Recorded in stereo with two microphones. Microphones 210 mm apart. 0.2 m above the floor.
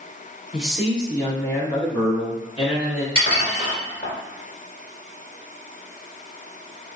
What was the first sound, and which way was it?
A man speaking, centre (ahead or behind).